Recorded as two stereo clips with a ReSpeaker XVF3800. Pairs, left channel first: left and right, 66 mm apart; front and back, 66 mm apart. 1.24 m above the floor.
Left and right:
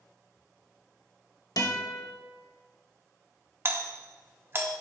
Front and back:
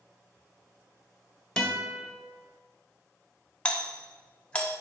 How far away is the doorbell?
About 0.8 m.